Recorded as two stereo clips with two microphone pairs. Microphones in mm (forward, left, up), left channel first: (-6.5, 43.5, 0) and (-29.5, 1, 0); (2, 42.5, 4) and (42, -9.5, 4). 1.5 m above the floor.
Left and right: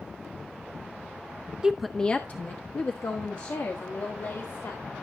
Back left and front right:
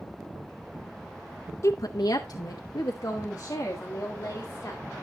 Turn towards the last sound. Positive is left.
turn(degrees=80)